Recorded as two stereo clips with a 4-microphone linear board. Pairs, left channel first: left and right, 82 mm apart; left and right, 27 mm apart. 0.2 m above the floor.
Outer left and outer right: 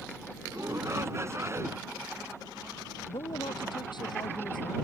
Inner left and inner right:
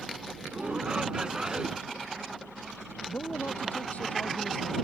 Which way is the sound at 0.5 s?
35° right (ahead or behind).